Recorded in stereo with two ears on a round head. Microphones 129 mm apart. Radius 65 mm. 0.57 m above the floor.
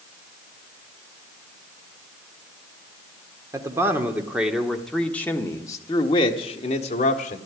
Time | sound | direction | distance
3.5 | a man speaking | 20° right (ahead or behind) | 1.6 m